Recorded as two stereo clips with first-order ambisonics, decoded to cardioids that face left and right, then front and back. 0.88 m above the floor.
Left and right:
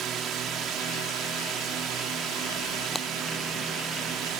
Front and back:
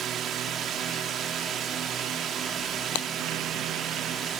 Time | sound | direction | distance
0.0 | a drone | 130° right | ?
3.0 | breaking glass | straight ahead | ?